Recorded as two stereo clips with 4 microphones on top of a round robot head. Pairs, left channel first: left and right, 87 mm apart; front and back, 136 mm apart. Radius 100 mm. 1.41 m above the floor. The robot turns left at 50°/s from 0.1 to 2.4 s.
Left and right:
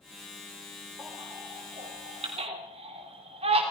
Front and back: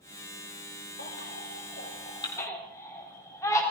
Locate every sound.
1.0 s a baby crying: 5° right, 3 m; by 3.6 s 75° right, 3 m